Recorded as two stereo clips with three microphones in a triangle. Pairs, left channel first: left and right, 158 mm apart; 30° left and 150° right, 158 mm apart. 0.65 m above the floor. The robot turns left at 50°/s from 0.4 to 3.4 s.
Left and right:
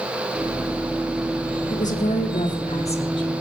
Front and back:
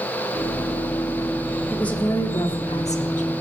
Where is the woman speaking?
115° left, 1.4 m; by 3.3 s 35° left, 1.4 m.